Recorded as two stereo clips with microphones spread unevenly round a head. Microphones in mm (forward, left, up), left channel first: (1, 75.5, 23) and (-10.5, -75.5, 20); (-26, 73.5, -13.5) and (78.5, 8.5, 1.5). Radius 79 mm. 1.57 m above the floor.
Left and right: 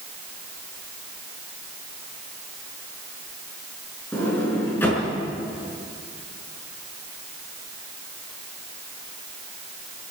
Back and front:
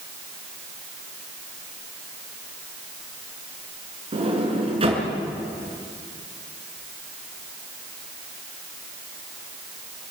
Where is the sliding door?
10° left, 5.5 m.